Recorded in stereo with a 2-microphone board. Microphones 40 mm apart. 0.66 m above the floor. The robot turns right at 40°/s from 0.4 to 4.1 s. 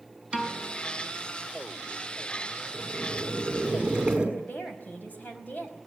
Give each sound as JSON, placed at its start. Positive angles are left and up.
{"t": 0.3, "sound": "a piano", "azimuth_deg": -155, "distance_m": 4.0}
{"t": 2.7, "sound": "boiling", "azimuth_deg": -70, "distance_m": 6.0}
{"t": 4.4, "sound": "a woman speaking", "side_deg": 50, "distance_m": 5.0}